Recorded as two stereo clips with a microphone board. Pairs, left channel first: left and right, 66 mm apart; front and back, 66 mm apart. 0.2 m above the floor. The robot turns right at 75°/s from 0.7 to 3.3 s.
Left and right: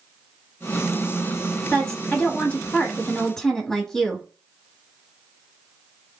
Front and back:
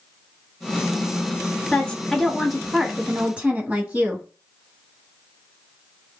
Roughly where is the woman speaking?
Ahead left.